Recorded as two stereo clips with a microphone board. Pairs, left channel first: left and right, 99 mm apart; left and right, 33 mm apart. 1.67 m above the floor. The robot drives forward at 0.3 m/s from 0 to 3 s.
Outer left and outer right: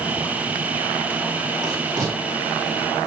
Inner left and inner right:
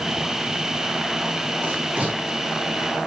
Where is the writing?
45° right (ahead or behind), 4.5 m; by 2.2 s 40° right (ahead or behind), 4.5 m.